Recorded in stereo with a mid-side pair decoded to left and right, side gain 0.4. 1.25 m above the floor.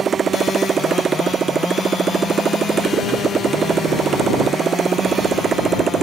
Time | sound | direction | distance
0.0 | a motorcycle | 55° right | ?